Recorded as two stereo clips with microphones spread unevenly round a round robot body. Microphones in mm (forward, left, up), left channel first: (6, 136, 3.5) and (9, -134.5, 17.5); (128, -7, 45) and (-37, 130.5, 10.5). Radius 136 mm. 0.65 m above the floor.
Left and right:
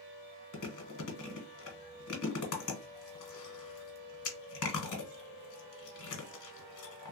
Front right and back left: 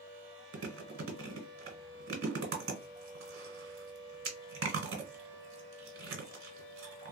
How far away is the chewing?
About 1.2 m.